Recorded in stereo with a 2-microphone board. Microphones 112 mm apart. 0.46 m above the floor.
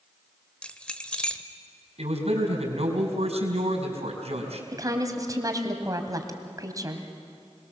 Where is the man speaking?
70° right (ahead or behind), 4.5 m.